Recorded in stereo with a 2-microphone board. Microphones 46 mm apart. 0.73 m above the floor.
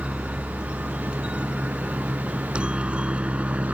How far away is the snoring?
I don't hear snoring.